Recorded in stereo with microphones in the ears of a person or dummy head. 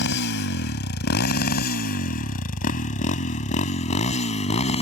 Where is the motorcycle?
60° left (ahead or behind); by 4.8 s 35° left (ahead or behind).